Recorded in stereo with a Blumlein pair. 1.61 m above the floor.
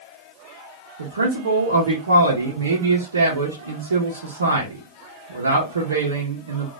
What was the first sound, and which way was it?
A man speaking, 70° right.